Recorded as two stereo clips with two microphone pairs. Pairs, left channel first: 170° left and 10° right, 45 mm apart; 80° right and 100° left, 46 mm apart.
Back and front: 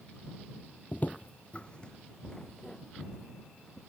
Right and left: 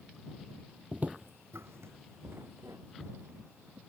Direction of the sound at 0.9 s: 150° left.